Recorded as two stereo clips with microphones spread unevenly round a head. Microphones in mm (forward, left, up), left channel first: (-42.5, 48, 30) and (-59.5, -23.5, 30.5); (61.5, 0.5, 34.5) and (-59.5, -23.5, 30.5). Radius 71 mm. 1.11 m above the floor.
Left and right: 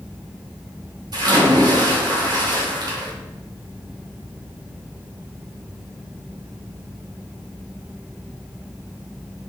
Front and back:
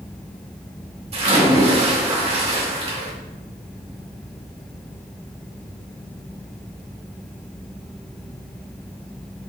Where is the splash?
130° right, 2.5 m.